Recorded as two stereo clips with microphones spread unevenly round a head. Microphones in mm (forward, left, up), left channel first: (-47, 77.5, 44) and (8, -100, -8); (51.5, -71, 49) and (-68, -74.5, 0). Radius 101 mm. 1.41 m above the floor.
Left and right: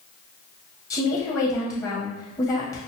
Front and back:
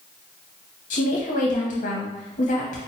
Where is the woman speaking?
35° left, 0.9 m.